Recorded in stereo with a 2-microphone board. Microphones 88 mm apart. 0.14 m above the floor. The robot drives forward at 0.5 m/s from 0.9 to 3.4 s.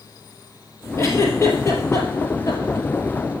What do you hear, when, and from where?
1.0 s a giggle: 30° left (ahead or behind), 3.5 m; by 2.9 s 35° left (ahead or behind), 2.5 m